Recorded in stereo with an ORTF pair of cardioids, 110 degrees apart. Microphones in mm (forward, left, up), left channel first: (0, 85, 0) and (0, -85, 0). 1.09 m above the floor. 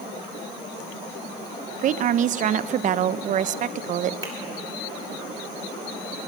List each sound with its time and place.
1.8 s a woman speaking: 45° right, 0.5 m
4.2 s a finger snap: 20° right, 3.5 m